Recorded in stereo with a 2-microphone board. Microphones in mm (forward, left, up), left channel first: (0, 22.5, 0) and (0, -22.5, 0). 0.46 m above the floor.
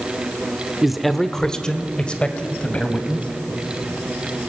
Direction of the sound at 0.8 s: 5° right (ahead or behind).